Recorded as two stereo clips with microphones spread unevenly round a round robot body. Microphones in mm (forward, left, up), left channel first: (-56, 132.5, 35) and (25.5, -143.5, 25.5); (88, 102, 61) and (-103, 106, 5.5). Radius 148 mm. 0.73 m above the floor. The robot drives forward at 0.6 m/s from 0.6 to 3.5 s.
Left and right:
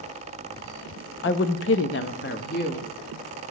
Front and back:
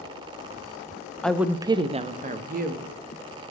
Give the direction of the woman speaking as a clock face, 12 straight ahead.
9 o'clock.